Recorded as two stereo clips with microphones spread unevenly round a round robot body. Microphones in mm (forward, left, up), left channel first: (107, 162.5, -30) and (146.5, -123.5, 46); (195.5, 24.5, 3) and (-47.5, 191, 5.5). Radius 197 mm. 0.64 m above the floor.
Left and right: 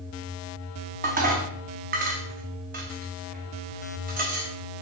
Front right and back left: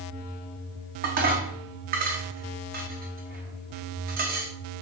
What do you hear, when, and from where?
1.0 s dishes clattering: 155° right, 0.5 m